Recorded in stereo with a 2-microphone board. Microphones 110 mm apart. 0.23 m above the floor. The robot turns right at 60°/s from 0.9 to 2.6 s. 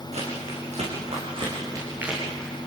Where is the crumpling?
80° right, 8.5 m; by 2.5 s 15° left (ahead or behind), 8.5 m.